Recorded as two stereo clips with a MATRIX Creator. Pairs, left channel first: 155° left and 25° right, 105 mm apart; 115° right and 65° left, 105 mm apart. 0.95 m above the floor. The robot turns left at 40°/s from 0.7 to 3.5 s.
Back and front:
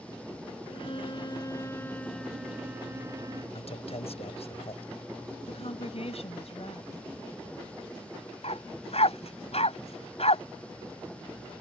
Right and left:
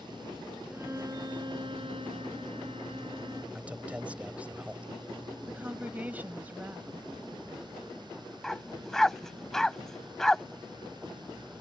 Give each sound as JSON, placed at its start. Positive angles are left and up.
{"t": 0.7, "sound": "a violin", "azimuth_deg": 135}
{"t": 3.5, "sound": "a man speaking", "azimuth_deg": 145}
{"t": 5.5, "sound": "a woman speaking", "azimuth_deg": 140}
{"t": 8.4, "sound": "a dog barking", "azimuth_deg": 160}